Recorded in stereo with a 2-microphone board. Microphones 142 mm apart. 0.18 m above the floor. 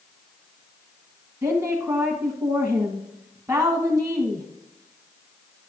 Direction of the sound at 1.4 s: 20° right (ahead or behind).